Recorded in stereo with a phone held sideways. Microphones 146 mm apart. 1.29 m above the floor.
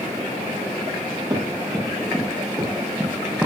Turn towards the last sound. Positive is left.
turn(degrees=-10)  # may be behind; listen again after turning